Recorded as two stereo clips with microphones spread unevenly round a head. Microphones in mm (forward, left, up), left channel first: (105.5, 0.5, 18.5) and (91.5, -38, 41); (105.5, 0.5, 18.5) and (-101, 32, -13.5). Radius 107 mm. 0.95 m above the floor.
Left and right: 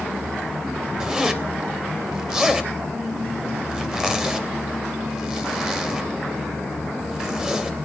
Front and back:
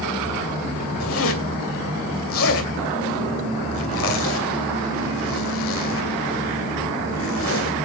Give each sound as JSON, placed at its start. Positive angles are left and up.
{"t": 1.0, "sound": "a zipper", "azimuth_deg": -40, "distance_m": 2.5}